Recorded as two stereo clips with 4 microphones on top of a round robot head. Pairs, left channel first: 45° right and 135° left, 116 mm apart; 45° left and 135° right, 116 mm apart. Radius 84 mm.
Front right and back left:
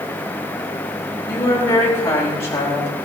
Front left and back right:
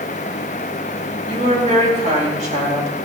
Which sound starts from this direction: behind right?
A woman speaking, at 1.3 s.